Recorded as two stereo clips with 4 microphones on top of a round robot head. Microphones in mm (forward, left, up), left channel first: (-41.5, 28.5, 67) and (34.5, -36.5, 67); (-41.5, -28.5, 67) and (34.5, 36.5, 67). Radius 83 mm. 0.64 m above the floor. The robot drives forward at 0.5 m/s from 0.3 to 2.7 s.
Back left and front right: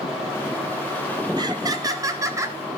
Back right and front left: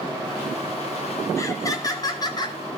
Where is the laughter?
85° right, 2.5 m; by 2.6 s 100° right, 2.5 m.